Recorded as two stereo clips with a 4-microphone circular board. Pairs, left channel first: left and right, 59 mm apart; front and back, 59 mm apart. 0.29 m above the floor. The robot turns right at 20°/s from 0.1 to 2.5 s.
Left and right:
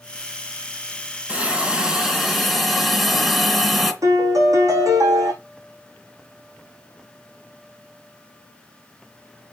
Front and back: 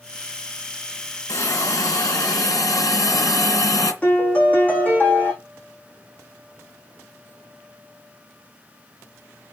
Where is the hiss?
25° right, 2.5 m; by 3.9 s straight ahead, 2.5 m.